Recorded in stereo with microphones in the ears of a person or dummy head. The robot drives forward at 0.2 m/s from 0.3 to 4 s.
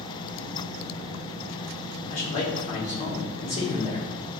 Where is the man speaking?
40° left (ahead or behind), 1.5 m; by 4.2 s 30° left (ahead or behind), 1.8 m.